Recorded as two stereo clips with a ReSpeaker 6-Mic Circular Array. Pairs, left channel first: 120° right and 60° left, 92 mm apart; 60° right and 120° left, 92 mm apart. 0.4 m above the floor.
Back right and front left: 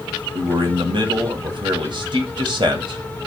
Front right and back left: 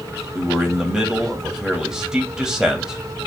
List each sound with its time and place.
0.3 s a man speaking: 40° left, 1.9 m